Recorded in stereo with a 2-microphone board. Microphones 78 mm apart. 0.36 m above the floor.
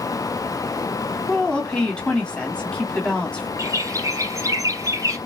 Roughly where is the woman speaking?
Centre.